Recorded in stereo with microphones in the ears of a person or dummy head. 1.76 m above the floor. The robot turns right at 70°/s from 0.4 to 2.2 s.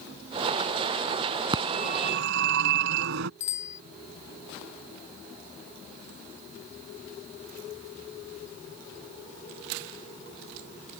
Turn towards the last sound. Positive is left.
turn(degrees=45)  # may be behind; listen again after turning